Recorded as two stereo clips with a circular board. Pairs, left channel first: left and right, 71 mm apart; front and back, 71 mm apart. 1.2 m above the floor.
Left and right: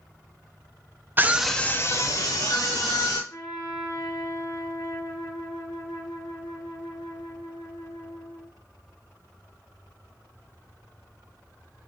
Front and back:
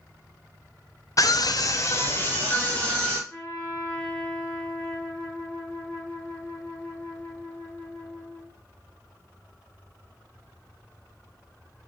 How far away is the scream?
About 0.6 m.